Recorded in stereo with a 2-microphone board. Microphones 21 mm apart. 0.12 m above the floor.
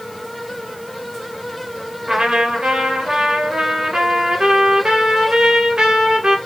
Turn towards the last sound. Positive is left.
turn(degrees=-40)  # may be behind; listen again after turning